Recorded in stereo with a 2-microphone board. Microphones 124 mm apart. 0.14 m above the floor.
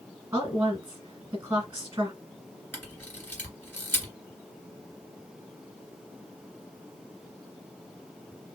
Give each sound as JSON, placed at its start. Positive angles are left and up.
{"t": 0.3, "sound": "a woman speaking", "side_deg": -20, "distance_m": 1.5}
{"t": 2.7, "sound": "a camera shutter", "side_deg": 15, "distance_m": 2.0}